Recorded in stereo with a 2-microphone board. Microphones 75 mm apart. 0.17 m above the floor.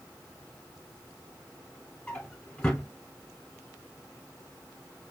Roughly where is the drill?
No drill in this recording.